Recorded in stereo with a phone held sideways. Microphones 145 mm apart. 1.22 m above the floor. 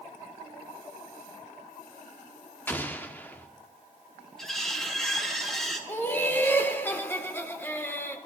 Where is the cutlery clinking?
5° left (ahead or behind), 2 m.